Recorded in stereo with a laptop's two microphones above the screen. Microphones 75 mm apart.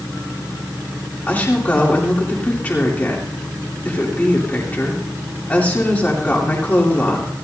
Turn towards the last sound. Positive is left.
turn(degrees=20)  # may be behind; listen again after turning